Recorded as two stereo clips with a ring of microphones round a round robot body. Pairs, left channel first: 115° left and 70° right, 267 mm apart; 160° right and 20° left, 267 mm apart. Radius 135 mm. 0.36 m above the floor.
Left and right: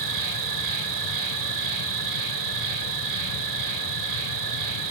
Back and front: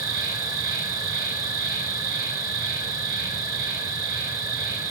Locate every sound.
0.0 s an insect: 55° right, 3.5 m